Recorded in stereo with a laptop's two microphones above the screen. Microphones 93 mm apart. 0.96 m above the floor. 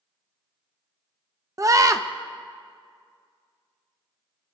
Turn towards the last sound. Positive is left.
turn(degrees=-35)  # may be behind; listen again after turning